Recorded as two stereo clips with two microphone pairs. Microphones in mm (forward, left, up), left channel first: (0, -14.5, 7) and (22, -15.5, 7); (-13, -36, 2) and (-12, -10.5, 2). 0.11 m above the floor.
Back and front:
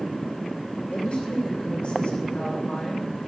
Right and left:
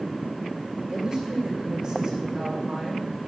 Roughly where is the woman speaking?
Behind.